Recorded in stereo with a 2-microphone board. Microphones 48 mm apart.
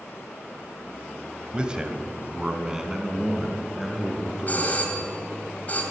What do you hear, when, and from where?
1.5 s a man speaking: 20° right (ahead or behind), 1.2 m; by 4.8 s 5° right (ahead or behind), 4.5 m
4.5 s a doorbell: 35° left (ahead or behind), 2.5 m